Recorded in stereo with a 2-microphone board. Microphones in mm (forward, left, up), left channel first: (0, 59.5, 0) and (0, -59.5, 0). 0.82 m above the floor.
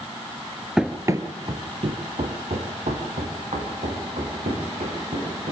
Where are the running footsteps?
5° right (ahead or behind), 0.8 m; by 5.5 s 80° right, 5 m.